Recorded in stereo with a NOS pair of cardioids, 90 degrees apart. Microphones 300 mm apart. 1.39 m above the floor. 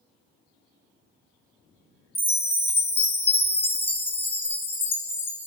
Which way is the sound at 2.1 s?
5° left.